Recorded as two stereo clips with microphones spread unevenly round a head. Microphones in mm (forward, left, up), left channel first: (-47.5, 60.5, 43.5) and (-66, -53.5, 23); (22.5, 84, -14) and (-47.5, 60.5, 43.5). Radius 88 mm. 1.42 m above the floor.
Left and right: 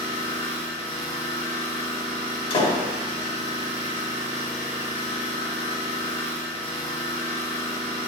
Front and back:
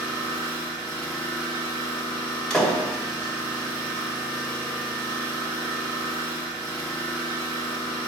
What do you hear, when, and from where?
0.0 s an engine running: 50° right, 2 m
2.5 s a door slam: 115° left, 2 m